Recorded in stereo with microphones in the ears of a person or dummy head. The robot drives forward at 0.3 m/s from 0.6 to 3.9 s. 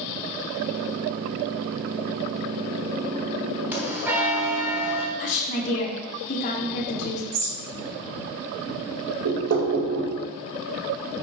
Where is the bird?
75° right (ahead or behind), 3 m.